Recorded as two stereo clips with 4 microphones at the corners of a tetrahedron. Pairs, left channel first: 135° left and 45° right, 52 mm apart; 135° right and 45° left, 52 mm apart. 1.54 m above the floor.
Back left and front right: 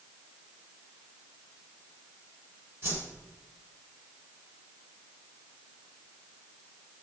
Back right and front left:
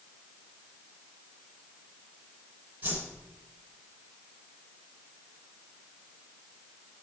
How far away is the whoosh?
About 3 m.